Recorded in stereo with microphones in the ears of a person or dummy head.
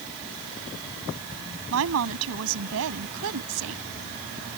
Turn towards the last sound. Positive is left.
turn(degrees=-80)